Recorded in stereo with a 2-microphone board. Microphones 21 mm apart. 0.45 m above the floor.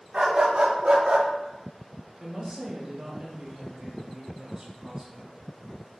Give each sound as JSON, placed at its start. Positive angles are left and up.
{"t": 0.1, "sound": "a dog barking", "side_deg": -55, "distance_m": 1.2}
{"t": 2.2, "sound": "a woman speaking", "side_deg": -30, "distance_m": 0.9}